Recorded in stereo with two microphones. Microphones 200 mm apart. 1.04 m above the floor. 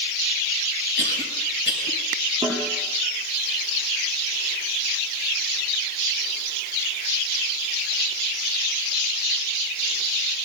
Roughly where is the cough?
Right.